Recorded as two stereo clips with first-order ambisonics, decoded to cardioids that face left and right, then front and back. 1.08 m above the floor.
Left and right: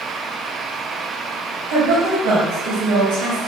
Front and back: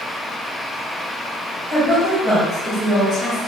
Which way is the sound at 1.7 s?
75° right.